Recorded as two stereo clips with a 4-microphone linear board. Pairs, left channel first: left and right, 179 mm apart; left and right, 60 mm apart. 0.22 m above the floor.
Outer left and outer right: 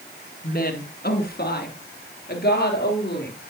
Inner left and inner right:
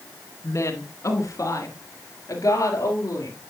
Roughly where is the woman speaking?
Left.